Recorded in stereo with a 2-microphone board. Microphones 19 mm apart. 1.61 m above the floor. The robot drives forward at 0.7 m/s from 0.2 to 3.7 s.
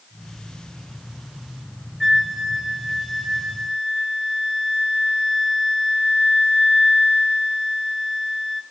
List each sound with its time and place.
2.0 s a flute: 15° right (ahead or behind), 2.5 m; by 8.6 s 10° right (ahead or behind), 3.5 m